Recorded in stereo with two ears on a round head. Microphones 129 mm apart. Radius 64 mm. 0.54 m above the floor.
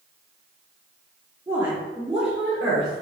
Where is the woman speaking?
15° right (ahead or behind), 1.1 m; by 3.0 s centre (ahead or behind), 1.7 m.